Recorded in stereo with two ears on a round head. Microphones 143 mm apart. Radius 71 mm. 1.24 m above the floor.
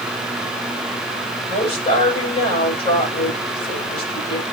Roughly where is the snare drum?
No snare drum in this recording.